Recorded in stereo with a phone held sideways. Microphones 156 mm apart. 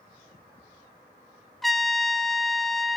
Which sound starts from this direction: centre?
A trumpet, at 1.6 s.